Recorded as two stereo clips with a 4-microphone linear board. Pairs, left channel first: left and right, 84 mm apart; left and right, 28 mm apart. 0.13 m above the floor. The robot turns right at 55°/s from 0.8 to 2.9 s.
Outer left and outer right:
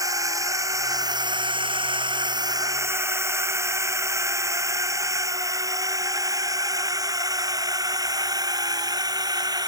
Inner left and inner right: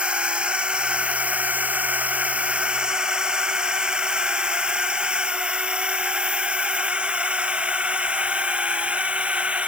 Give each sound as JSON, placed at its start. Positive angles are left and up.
{"t": 0.0, "sound": "a drone", "side_deg": -40}